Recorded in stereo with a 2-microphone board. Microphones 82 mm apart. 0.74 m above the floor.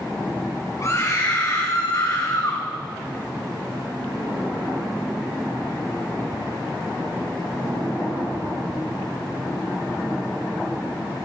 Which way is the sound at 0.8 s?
40° left (ahead or behind).